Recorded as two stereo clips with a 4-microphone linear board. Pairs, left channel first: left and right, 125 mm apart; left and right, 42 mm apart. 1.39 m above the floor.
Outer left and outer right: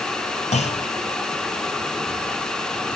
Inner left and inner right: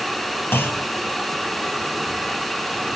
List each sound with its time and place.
0.5 s a clunk: 65° left (ahead or behind), 0.5 m